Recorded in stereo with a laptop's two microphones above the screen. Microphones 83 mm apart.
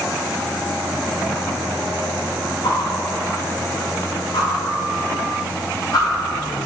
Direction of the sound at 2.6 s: 70° left (ahead or behind).